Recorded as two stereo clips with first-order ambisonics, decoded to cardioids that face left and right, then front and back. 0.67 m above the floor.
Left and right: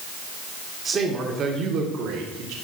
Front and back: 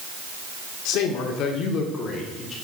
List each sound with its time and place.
0.8 s a man speaking: 20° right, 1.8 m; by 2.5 s 65° right, 2.0 m